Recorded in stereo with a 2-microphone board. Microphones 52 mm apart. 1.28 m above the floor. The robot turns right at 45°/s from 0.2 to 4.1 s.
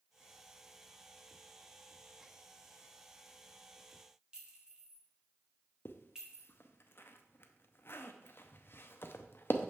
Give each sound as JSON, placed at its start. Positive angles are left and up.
{"t": 4.3, "sound": "a clink", "side_deg": -15, "distance_m": 1.6}
{"t": 5.8, "sound": "a zipper", "side_deg": 45, "distance_m": 0.6}